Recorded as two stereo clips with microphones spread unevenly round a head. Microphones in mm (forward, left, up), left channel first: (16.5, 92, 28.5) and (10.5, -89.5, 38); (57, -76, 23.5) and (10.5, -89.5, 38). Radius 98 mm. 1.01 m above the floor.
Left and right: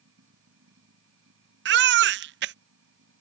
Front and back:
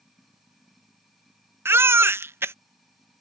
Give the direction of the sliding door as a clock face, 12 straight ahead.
I don't hear a sliding door.